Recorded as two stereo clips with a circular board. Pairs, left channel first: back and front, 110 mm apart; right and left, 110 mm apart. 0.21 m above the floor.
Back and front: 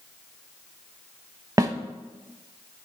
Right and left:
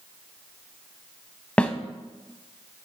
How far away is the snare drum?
About 0.6 m.